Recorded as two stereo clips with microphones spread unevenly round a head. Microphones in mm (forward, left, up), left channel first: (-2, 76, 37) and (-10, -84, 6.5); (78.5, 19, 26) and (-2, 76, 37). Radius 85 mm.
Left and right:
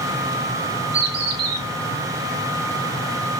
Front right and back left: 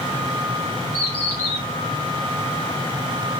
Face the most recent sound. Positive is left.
turn(degrees=-110)